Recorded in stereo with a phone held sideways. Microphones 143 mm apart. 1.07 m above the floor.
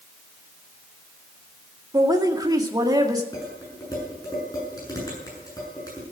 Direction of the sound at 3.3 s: 25° left (ahead or behind).